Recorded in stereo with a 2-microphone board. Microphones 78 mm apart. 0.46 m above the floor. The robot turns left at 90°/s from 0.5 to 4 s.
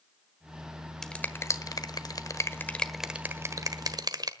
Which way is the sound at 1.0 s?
5° left (ahead or behind).